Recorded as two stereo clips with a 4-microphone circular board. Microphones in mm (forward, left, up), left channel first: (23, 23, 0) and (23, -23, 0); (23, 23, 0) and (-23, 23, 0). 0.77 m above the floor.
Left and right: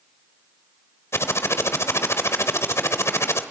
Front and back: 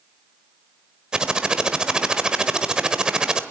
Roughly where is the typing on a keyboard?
Left.